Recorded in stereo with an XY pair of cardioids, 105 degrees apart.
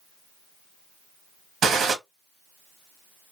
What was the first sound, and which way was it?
A gunshot, 60° right.